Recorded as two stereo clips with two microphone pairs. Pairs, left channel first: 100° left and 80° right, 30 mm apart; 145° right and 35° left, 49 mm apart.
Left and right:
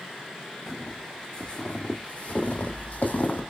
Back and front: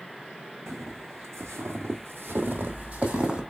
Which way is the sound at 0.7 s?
35° left.